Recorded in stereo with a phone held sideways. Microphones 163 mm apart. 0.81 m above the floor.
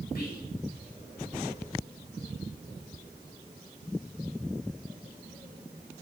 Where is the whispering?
70° left (ahead or behind), 6 m.